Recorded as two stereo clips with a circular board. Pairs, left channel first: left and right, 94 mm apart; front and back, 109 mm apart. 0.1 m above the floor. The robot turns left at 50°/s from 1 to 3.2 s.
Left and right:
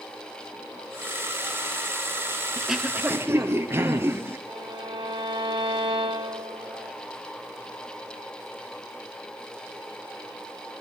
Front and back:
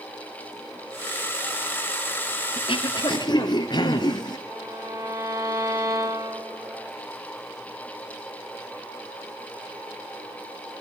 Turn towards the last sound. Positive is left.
turn(degrees=-120)